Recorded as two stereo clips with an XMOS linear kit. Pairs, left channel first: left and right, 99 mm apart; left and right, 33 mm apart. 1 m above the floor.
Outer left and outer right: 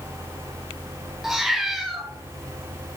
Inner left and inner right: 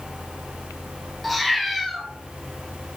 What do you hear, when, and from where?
1.2 s a cat meowing: 5° right (ahead or behind), 0.7 m